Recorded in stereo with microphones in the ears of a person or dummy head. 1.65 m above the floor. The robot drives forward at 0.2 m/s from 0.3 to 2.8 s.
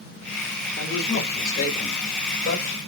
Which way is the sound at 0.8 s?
75° left (ahead or behind).